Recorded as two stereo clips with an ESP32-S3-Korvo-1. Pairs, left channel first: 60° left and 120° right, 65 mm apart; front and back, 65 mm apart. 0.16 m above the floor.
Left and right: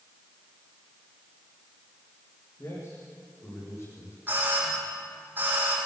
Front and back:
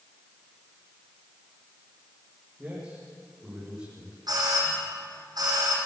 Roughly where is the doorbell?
Behind.